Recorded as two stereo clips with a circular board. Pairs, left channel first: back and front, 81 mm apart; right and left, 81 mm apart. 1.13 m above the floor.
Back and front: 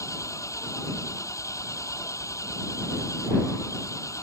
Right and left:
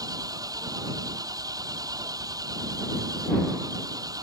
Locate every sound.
0.0 s an engine running: 130° left